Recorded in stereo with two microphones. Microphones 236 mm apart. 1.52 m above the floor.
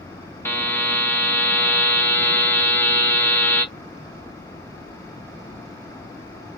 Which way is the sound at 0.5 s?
10° left (ahead or behind).